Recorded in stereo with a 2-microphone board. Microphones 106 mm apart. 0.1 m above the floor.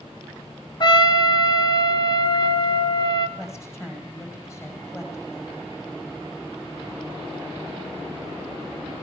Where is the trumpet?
40° left (ahead or behind), 1.3 m.